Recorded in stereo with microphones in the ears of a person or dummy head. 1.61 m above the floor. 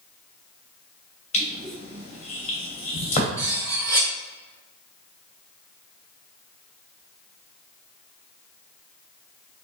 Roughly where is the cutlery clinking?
Centre.